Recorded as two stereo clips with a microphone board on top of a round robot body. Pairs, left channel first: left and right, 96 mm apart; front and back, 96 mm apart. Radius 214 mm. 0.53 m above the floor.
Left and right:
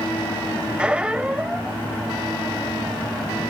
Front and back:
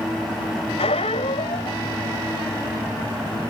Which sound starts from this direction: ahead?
A squeak, at 0.8 s.